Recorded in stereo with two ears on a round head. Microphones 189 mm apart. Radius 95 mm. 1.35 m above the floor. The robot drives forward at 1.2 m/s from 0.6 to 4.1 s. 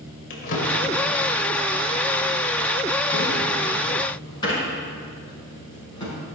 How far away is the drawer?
About 2 m.